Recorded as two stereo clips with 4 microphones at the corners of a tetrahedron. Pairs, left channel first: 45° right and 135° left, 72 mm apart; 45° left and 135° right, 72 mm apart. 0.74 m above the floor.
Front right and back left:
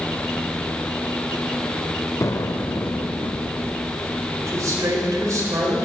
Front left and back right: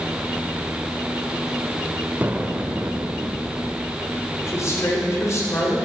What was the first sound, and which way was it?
An explosion, 75° right.